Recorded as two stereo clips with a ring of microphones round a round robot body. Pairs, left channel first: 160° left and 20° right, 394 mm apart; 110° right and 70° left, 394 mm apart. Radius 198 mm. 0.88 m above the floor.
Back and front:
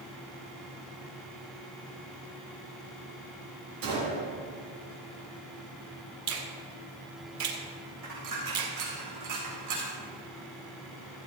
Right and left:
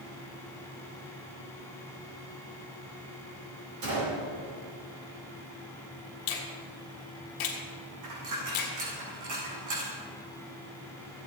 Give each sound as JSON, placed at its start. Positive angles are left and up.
{"t": 3.8, "sound": "a gunshot", "azimuth_deg": 20, "distance_m": 5.0}
{"t": 6.3, "sound": "a finger snap", "azimuth_deg": -75, "distance_m": 1.9}
{"t": 8.0, "sound": "a dropped coin", "azimuth_deg": 20, "distance_m": 4.5}